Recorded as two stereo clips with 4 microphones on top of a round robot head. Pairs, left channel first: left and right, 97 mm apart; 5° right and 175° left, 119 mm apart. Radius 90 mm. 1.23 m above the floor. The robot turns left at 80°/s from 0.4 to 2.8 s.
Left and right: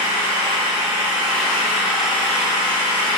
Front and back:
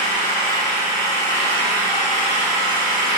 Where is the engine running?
45° right, 1.9 m; by 3.2 s 120° left, 1.9 m.